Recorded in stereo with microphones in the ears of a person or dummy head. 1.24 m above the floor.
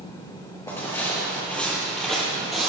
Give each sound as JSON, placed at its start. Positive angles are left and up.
{"t": 0.7, "sound": "footsteps", "side_deg": 15, "distance_m": 1.6}